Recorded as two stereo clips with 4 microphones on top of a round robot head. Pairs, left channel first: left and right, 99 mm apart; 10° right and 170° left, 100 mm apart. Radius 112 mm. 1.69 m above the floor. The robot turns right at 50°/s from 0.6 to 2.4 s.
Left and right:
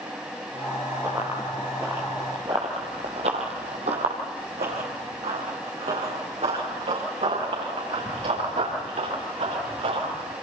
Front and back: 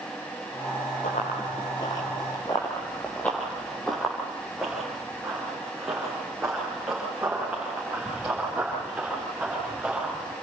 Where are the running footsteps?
20° right, 2.5 m; by 10.3 s 105° right, 11.5 m.